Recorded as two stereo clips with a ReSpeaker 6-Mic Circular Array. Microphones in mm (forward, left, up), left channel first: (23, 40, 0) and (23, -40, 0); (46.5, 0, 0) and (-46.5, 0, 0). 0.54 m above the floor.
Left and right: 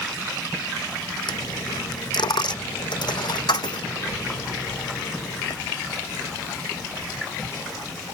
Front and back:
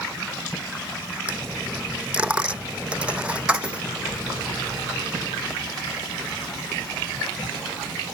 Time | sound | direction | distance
1.3 | a dropped coin | 105° left | ?